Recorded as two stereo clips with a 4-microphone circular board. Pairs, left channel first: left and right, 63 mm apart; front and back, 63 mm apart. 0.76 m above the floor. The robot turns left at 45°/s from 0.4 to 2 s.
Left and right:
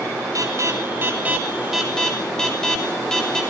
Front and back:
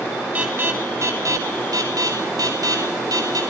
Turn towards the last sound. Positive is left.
turn(degrees=170)